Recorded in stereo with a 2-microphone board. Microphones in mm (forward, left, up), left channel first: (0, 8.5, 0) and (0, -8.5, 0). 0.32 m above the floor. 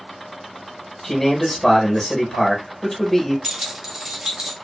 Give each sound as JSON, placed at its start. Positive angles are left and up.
{"t": 1.0, "sound": "a man speaking", "side_deg": 15, "distance_m": 1.0}
{"t": 3.4, "sound": "keys jangling", "side_deg": -35, "distance_m": 1.1}